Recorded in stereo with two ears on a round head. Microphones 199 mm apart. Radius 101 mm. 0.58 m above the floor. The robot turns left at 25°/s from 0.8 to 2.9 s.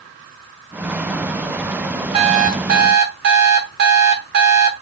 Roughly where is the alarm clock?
Right.